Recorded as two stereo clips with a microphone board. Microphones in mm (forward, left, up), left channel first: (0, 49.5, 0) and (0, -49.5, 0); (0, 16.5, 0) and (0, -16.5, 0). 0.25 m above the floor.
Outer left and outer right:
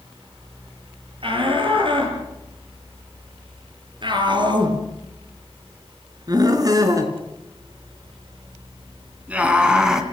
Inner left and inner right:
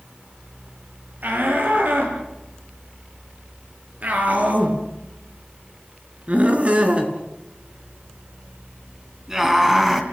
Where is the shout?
60° right (ahead or behind), 7 m; by 10.0 s 5° right (ahead or behind), 3 m.